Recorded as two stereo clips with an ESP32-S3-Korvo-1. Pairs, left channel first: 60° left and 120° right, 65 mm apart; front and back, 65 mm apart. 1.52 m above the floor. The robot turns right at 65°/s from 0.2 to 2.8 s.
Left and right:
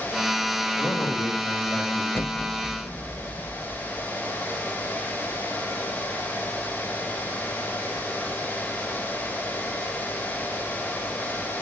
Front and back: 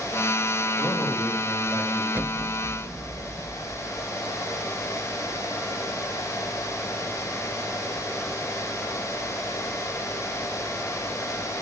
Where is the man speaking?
15° left, 5 m; by 2.0 s 100° left, 5 m.